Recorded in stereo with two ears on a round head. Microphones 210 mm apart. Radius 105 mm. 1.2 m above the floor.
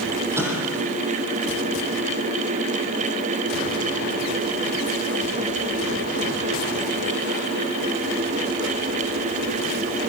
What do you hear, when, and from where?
0.4 s an explosion: 10° right (ahead or behind), 9 m